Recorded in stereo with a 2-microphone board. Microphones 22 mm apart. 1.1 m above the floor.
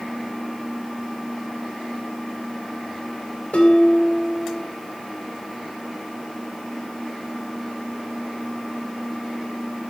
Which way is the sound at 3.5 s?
70° left (ahead or behind).